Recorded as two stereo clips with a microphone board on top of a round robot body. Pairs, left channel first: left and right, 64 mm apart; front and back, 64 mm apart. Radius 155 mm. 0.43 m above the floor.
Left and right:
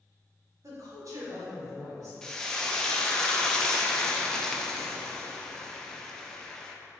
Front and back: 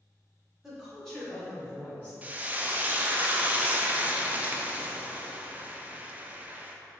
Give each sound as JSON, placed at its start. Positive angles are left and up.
{"t": 0.6, "sound": "a woman speaking", "azimuth_deg": -95, "distance_m": 1.6}
{"t": 2.2, "sound": "frying", "azimuth_deg": 160, "distance_m": 0.6}